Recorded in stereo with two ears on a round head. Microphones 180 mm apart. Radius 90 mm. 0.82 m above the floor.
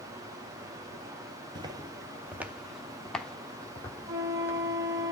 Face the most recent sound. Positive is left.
turn(degrees=-20)  # may be behind; listen again after turning